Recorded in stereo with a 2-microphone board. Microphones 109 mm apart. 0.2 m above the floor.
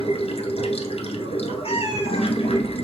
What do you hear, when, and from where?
0.0 s running water: 70° left (ahead or behind), 0.9 m
1.6 s a cat meowing: 60° left (ahead or behind), 0.8 m